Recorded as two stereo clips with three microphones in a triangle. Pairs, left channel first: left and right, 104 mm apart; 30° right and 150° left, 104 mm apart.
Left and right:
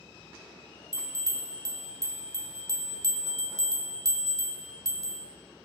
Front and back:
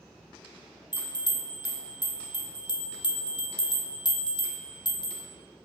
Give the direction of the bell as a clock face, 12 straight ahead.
2 o'clock.